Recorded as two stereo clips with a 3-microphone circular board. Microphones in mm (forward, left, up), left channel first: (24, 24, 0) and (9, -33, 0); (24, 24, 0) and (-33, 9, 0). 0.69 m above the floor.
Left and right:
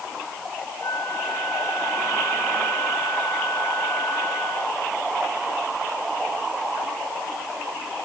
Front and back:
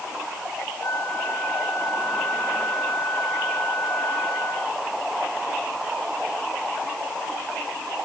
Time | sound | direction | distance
0.8 | a flute | 55° left | ?